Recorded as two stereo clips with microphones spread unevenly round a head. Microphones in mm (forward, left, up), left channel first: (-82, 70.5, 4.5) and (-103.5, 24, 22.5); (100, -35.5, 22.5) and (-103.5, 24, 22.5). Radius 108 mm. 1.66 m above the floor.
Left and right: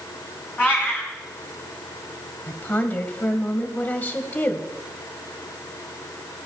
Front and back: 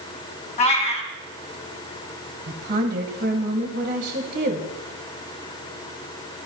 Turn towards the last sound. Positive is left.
turn(degrees=115)